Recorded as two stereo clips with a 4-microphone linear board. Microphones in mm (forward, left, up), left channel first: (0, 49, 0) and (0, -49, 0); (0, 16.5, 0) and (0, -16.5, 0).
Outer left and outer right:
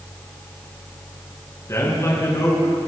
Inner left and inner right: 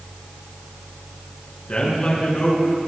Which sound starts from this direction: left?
A man speaking, at 1.7 s.